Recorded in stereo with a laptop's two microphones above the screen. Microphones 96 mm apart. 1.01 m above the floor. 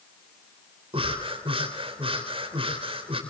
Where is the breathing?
75° right (ahead or behind), 3.5 m.